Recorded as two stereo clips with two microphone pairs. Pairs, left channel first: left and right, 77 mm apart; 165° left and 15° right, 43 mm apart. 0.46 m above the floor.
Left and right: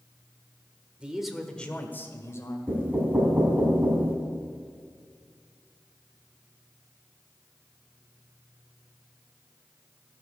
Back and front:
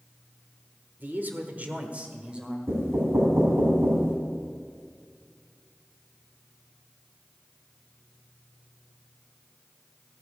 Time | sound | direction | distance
1.0 | a man speaking | 15° right | 1.4 m
2.7 | knocking | 20° right | 2.5 m